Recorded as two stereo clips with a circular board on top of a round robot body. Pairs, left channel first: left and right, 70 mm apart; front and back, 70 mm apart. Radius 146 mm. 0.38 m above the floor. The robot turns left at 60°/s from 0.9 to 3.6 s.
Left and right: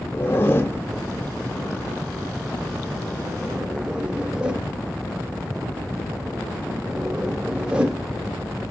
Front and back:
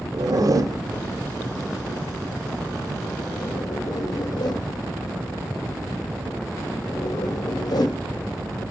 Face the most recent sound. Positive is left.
turn(degrees=-10)